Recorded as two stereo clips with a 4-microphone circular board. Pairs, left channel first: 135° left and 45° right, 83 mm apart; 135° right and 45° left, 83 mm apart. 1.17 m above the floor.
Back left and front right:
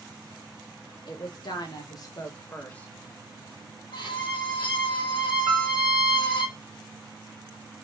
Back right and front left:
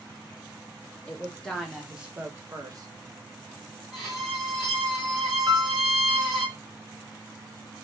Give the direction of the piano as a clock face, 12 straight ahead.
12 o'clock.